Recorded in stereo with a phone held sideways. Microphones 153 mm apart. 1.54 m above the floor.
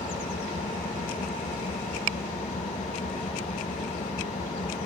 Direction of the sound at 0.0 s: 60° left (ahead or behind).